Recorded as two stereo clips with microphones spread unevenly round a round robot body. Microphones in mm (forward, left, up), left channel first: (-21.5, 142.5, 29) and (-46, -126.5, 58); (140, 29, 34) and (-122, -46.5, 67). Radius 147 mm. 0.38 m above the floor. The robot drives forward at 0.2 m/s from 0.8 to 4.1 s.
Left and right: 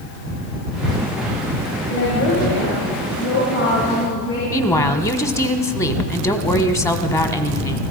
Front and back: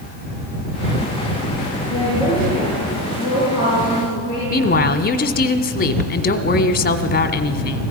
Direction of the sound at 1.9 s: 120° left.